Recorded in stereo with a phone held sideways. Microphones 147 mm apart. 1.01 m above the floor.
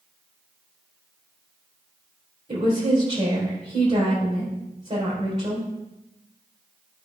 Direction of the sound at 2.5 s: 45° right (ahead or behind).